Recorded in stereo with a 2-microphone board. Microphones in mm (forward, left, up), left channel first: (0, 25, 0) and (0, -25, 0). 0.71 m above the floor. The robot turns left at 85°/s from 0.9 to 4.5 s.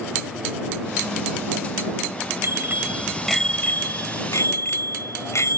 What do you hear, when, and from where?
2.4 s a bicycle bell: 110° right; by 5.6 s 70° left